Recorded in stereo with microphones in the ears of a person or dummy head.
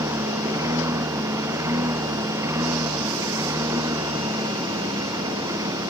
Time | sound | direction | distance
0.0 | a lawn mower | 20° right (ahead or behind) | ?